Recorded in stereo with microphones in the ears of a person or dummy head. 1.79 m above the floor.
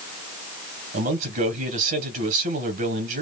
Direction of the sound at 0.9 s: 50° right (ahead or behind).